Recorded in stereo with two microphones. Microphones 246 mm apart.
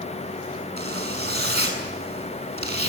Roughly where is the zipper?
Right.